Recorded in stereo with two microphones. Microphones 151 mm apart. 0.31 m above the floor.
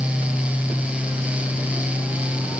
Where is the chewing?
I don't hear chewing.